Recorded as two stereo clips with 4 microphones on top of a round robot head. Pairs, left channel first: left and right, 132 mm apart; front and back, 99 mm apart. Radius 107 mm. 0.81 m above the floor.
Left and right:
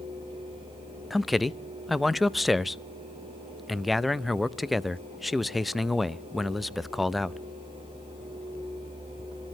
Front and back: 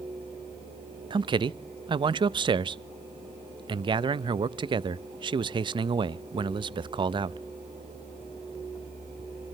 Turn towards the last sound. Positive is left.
turn(degrees=180)